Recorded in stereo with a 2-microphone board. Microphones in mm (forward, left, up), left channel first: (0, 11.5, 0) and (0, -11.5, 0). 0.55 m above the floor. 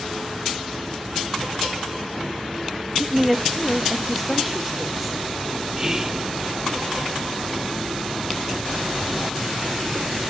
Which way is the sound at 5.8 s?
25° right (ahead or behind).